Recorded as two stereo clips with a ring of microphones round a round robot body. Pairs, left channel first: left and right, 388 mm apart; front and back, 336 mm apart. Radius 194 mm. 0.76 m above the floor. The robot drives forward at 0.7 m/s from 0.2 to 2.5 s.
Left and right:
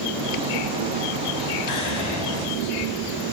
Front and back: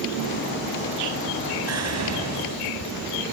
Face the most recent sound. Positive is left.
turn(degrees=140)